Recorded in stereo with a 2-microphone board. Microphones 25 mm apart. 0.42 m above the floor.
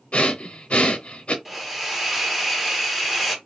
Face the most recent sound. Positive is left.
turn(degrees=-5)  # may be behind; listen again after turning